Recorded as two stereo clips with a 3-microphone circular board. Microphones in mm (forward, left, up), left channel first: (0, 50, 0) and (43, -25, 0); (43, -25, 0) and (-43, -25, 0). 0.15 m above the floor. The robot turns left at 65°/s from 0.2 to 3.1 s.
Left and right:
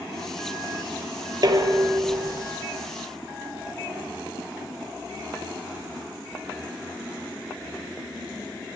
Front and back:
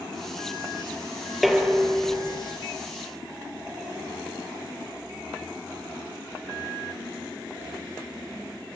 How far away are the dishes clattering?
About 2.5 m.